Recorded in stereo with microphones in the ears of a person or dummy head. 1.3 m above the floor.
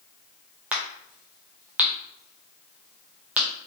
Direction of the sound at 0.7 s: 5° right (ahead or behind).